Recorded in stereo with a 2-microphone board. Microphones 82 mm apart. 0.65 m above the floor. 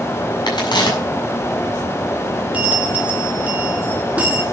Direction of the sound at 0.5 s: 75° left (ahead or behind).